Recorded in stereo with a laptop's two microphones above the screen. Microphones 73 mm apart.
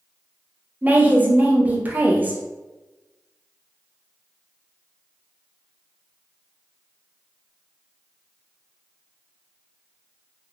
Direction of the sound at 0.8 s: 25° right (ahead or behind).